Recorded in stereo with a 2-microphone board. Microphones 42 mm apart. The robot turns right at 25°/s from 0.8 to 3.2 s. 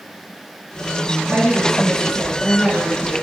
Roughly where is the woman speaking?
Ahead right.